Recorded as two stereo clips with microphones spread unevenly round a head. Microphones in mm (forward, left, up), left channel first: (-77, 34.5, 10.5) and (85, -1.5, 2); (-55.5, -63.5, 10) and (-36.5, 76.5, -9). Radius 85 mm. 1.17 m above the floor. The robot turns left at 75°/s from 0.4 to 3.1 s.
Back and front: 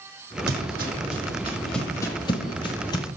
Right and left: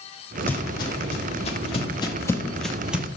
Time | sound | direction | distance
0.5 | footsteps | 20° right | 2 m